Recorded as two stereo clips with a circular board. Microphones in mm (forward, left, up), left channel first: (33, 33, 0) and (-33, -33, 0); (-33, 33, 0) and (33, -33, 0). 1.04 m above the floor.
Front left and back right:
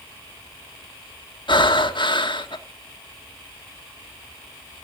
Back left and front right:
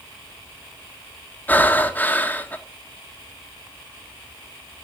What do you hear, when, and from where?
1.5 s breathing: 65° left, 1.5 m